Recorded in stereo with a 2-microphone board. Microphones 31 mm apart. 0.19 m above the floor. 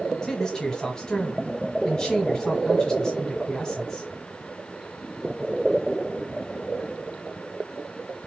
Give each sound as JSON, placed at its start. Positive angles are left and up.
{"t": 0.2, "sound": "a man speaking", "side_deg": 25, "distance_m": 1.5}